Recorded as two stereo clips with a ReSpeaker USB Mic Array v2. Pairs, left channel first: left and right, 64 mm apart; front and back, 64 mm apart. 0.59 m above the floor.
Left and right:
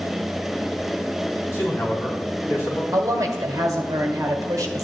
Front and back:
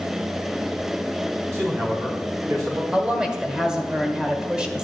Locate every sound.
1.5 s a man speaking: 135° left, 4.5 m; by 2.8 s 145° left, 4.5 m
2.9 s a woman speaking: 105° right, 1.9 m